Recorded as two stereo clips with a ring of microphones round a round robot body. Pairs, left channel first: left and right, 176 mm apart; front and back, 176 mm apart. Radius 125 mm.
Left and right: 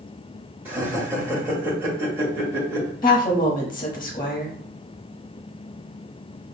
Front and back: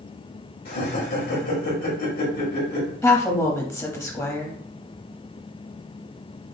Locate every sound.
0.7 s laughter: 15° right, 1.4 m
3.0 s a woman speaking: 65° left, 1.0 m